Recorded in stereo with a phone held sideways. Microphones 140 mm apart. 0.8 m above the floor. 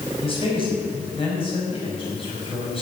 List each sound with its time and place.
0.2 s a man speaking: 40° left (ahead or behind), 5.5 m